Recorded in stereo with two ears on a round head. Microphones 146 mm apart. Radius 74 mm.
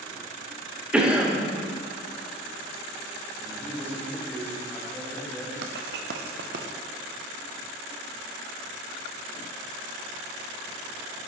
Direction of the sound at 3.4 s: 10° left (ahead or behind).